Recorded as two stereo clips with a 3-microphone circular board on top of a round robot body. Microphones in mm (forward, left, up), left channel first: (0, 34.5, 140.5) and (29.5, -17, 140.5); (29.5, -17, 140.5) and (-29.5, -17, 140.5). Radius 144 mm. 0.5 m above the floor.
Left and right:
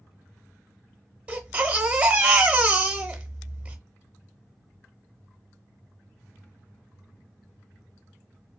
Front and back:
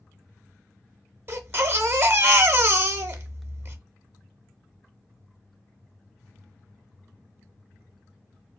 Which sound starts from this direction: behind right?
A baby crying, at 1.3 s.